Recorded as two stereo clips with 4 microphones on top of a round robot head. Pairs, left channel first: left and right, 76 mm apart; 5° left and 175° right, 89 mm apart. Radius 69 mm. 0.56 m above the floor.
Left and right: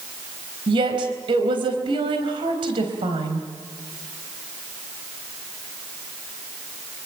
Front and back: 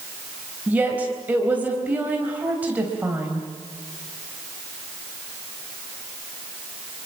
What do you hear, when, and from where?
0.7 s a woman speaking: 100° right, 4 m